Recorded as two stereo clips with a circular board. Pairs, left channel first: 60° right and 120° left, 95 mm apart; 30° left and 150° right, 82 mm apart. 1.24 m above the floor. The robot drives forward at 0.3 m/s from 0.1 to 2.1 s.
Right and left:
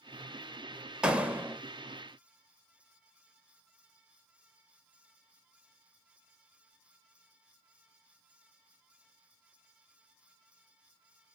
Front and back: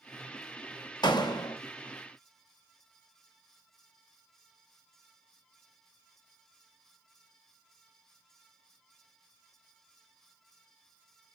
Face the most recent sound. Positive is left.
turn(degrees=80)